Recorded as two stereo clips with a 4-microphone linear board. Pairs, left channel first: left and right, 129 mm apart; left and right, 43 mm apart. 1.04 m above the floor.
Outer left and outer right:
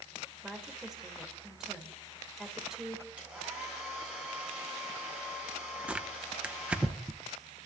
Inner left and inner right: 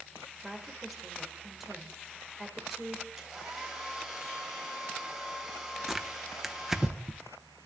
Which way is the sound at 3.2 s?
10° right (ahead or behind).